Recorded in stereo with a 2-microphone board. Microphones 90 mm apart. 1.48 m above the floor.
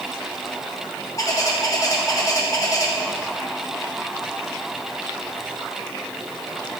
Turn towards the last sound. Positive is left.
turn(degrees=40)  # may be behind; listen again after turning